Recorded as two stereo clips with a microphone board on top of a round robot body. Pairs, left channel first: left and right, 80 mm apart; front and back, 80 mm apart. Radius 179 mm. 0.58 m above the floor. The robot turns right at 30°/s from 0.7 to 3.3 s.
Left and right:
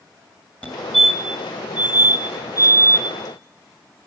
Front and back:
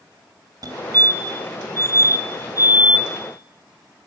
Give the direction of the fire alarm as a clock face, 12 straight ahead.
7 o'clock.